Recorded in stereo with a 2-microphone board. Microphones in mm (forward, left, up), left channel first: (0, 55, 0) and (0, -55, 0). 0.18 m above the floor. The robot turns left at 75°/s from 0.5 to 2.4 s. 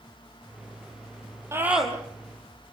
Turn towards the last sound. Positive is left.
turn(degrees=140)